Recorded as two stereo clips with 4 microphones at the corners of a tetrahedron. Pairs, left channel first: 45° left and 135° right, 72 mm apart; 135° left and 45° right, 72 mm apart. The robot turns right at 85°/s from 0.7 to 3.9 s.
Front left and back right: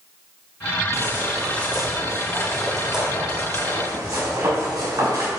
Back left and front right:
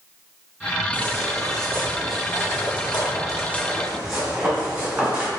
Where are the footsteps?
110° right, 1.9 m; by 5.3 s 120° right, 5 m.